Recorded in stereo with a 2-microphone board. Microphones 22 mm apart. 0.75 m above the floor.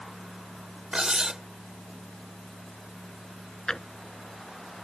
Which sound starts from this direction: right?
Cutlery clinking, at 0.9 s.